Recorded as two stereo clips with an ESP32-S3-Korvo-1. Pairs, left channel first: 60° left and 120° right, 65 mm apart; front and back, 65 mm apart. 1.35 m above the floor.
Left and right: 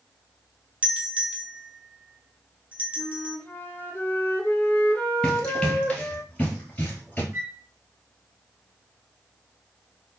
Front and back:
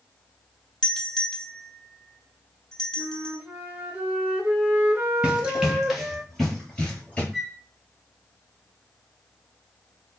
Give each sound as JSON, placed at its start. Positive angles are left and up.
{"t": 0.8, "sound": "a doorbell", "azimuth_deg": -70, "distance_m": 0.6}
{"t": 3.0, "sound": "a flute", "azimuth_deg": 125, "distance_m": 0.6}
{"t": 5.2, "sound": "running footsteps", "azimuth_deg": 125, "distance_m": 1.4}
{"t": 7.3, "sound": "a flute", "azimuth_deg": -90, "distance_m": 1.1}